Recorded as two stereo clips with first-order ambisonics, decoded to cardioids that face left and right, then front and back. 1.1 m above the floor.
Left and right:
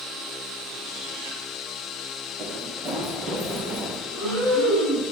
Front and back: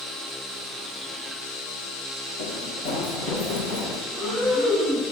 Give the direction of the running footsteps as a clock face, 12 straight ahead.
1 o'clock.